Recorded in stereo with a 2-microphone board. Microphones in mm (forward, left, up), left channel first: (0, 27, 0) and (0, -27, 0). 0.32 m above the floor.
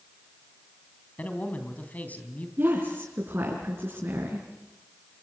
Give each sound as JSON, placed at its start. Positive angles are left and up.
{"t": 1.2, "sound": "a man speaking", "side_deg": 30, "distance_m": 3.0}
{"t": 2.6, "sound": "a woman speaking", "side_deg": -45, "distance_m": 5.0}